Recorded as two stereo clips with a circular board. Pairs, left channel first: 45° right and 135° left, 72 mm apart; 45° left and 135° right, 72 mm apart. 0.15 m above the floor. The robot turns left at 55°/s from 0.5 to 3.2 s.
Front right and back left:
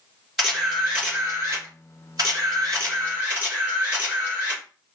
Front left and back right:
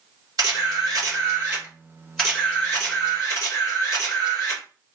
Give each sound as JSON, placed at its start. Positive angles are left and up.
{"t": 0.4, "sound": "a camera shutter", "azimuth_deg": -140, "distance_m": 2.5}